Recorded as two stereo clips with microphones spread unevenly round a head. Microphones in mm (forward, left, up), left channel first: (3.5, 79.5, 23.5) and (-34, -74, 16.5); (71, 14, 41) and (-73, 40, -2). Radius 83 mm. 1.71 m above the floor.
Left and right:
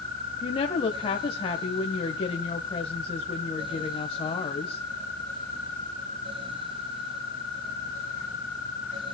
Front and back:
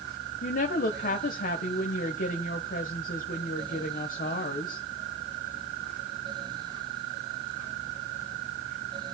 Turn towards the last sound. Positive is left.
turn(degrees=15)